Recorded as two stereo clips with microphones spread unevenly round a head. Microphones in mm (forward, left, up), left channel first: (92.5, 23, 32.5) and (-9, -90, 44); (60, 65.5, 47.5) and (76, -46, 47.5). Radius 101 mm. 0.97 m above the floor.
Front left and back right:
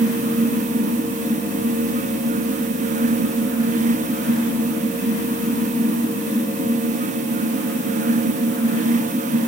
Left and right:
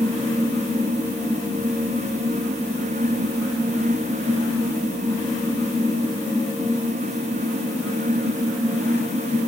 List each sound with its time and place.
Only background noise.